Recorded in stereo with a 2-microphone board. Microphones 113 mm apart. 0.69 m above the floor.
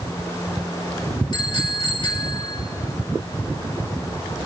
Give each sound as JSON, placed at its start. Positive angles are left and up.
{"t": 1.3, "sound": "a bicycle bell", "side_deg": 55, "distance_m": 2.5}